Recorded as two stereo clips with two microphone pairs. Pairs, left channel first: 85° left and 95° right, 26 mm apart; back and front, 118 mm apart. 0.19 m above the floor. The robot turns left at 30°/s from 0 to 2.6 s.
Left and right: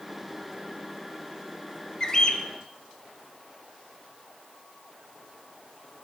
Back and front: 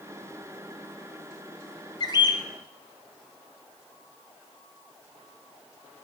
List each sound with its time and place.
2.0 s a bird: 150° left, 0.8 m; by 2.5 s 135° left, 0.8 m